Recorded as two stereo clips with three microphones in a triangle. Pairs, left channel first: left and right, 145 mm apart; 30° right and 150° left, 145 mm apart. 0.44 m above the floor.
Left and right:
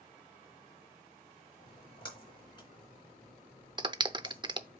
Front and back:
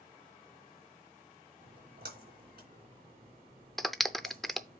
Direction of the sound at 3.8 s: 115° right.